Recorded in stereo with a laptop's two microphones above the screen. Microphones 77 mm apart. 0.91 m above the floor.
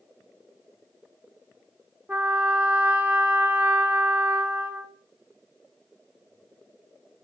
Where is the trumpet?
25° right (ahead or behind), 0.8 m.